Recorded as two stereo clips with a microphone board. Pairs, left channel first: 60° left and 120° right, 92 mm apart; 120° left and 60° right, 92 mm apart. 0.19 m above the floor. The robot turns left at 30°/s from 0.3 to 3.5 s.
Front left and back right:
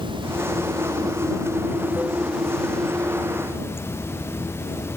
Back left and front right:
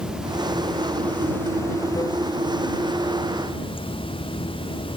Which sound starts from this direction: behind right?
Running water, at 0.0 s.